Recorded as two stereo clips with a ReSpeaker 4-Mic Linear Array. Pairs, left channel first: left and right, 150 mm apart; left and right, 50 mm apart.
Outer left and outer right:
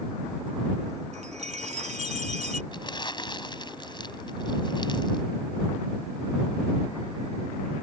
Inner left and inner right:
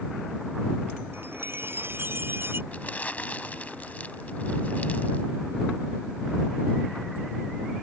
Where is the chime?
50° right (ahead or behind).